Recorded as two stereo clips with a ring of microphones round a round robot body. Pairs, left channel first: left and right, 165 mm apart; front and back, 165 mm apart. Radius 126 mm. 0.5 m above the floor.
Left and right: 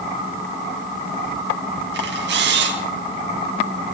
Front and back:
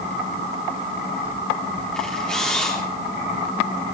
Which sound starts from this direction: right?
A camera shutter, at 1.9 s.